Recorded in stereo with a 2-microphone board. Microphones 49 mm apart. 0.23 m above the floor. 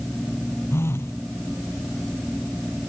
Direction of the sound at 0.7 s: 65° left (ahead or behind).